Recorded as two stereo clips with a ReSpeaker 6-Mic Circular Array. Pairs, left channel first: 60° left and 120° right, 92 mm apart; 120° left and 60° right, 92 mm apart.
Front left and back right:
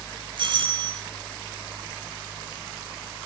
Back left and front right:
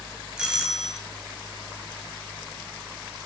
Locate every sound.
0.4 s a doorbell: 140° right, 5 m